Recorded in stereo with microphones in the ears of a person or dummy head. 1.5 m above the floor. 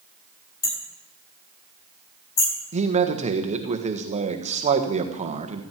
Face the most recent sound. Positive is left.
turn(degrees=-30)  # may be behind; listen again after turning